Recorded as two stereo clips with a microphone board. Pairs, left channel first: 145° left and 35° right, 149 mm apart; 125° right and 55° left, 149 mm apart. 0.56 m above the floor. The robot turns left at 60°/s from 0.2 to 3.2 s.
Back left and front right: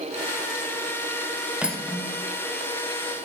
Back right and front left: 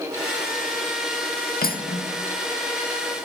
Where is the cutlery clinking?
115° right, 0.9 m; by 2.1 s 145° right, 0.9 m.